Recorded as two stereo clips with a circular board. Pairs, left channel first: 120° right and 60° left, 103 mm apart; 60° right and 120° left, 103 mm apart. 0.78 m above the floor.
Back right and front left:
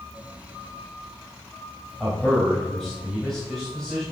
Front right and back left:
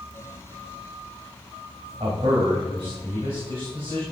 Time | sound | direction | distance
2.0 | a man speaking | 155° left | 3 m